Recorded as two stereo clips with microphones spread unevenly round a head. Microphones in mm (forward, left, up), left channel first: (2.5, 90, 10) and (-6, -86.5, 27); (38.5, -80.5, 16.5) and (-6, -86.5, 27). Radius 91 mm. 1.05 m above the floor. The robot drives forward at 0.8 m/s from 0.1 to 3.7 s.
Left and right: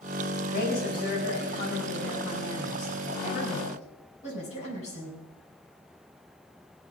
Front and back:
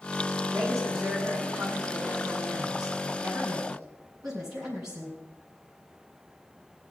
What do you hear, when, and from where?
0.4 s a woman speaking: 125° left, 6 m; by 5.2 s 140° left, 8 m